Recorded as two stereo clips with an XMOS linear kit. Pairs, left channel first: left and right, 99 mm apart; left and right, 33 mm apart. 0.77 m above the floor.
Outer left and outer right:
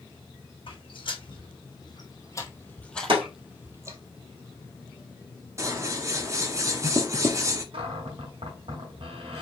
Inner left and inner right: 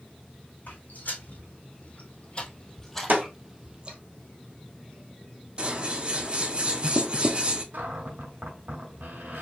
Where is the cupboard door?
75° right (ahead or behind), 1.5 m.